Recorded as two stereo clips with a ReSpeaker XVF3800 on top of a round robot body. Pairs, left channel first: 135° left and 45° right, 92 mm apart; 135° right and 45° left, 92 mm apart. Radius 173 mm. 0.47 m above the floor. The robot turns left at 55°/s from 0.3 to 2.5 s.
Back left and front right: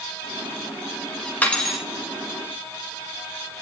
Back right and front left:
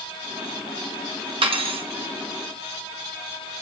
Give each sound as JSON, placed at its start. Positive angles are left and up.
{"t": 1.4, "sound": "cutlery clinking", "azimuth_deg": 65, "distance_m": 1.7}